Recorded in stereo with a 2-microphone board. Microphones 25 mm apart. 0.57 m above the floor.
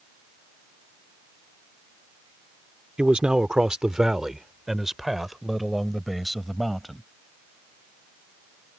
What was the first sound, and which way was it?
A man speaking, 40° right (ahead or behind).